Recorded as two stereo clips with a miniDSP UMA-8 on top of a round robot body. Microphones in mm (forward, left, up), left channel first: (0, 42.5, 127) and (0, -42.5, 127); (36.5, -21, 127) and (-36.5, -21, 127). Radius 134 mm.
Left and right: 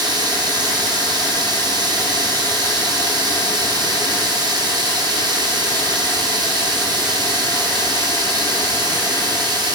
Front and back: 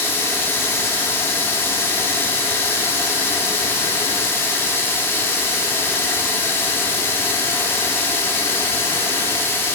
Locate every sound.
0.0 s running water: 60° right, 1.4 m